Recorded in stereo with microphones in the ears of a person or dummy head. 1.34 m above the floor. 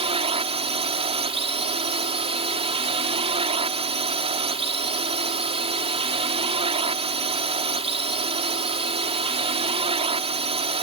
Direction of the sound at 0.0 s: 30° right (ahead or behind).